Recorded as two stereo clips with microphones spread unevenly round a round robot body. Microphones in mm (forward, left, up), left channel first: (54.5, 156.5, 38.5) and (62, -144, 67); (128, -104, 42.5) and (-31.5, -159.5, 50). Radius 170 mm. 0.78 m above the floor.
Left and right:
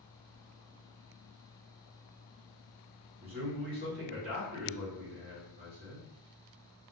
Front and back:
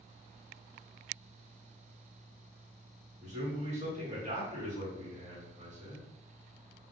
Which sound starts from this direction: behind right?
A man speaking, at 3.2 s.